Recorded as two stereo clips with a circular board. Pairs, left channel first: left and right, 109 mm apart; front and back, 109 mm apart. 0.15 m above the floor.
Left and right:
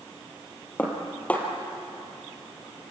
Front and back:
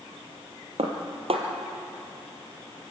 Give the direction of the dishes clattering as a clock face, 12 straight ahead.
6 o'clock.